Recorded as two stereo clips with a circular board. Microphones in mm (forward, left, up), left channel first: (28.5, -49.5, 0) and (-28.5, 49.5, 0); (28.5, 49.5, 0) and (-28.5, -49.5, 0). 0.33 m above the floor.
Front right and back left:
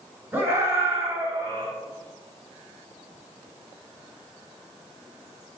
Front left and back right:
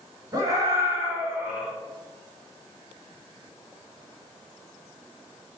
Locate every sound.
0.3 s a scream: 170° right, 2.5 m; by 1.7 s 155° left, 2.0 m